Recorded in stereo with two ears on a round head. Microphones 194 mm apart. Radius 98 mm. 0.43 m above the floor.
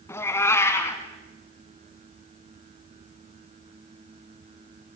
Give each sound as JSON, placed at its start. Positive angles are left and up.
{"t": 0.1, "sound": "a cat meowing", "side_deg": 10, "distance_m": 2.0}